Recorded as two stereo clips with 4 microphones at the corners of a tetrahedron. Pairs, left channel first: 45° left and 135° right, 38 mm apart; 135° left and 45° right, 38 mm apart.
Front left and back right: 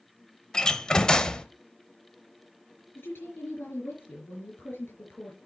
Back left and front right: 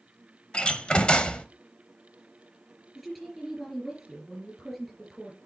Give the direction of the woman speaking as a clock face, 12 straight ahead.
10 o'clock.